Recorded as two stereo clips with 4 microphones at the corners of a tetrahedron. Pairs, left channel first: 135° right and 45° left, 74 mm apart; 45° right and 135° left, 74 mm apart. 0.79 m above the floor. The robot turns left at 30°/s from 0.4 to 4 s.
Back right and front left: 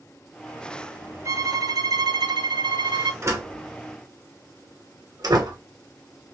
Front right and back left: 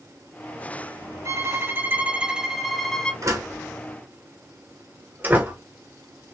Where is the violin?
90° left, 0.7 m; by 3.1 s 35° left, 0.7 m.